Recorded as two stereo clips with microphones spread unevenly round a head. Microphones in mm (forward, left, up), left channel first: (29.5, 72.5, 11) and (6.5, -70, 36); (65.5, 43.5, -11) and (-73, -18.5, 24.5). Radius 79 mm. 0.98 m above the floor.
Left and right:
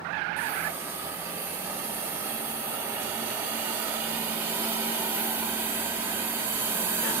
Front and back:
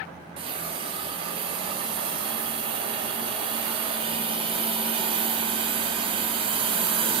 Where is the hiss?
160° right, 0.5 m.